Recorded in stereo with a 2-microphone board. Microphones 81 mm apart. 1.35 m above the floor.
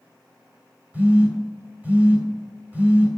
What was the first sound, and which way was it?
A phone buzzing, 20° right (ahead or behind).